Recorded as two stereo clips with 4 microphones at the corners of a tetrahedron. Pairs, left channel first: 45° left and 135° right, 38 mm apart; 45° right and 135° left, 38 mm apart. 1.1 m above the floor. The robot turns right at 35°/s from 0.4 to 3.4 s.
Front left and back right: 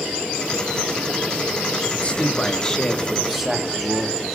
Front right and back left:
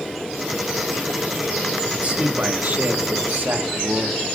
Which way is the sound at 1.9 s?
85° left.